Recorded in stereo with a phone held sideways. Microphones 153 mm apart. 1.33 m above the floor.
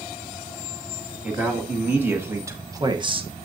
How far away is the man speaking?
About 2 m.